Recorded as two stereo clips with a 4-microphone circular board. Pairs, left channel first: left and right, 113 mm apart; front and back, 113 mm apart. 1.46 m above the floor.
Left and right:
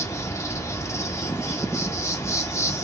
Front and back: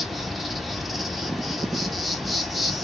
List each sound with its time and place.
0.0 s an insect: 90° left, 0.8 m